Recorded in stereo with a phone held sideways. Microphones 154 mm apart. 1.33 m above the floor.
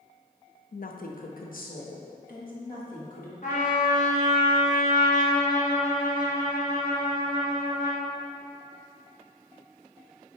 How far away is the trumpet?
About 1.3 m.